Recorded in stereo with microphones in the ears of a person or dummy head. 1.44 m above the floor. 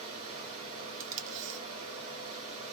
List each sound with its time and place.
0.0 s running water: 25° right (ahead or behind), 1.3 m
1.0 s tape being pulled: 45° right (ahead or behind), 1.3 m